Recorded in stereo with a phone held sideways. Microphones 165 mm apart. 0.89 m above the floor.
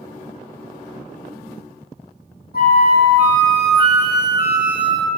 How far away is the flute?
About 0.7 m.